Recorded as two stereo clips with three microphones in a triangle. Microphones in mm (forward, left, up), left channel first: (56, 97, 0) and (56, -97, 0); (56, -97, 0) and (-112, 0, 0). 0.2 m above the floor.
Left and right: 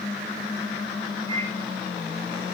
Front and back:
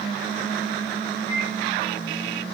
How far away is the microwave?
About 3.5 m.